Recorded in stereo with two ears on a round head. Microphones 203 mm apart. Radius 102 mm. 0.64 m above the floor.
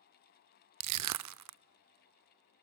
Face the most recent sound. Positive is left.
turn(degrees=-80)